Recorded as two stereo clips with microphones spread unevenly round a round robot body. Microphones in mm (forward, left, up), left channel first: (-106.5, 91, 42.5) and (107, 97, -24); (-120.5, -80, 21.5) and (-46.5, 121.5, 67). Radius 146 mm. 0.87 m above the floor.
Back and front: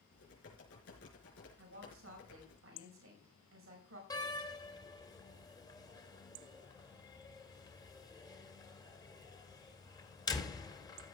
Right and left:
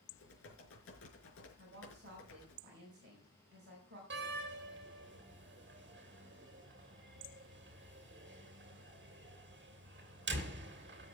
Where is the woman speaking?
15° left, 4.5 m.